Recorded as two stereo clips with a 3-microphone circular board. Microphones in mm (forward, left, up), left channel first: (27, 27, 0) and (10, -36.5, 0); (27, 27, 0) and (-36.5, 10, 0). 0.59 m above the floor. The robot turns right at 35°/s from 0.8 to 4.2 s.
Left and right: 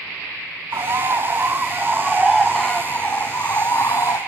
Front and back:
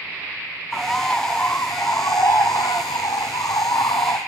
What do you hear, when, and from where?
0.7 s a bird: 70° right, 2.5 m; by 4.2 s 50° left, 2.5 m